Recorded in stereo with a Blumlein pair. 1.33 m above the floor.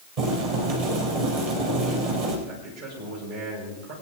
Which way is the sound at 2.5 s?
55° right.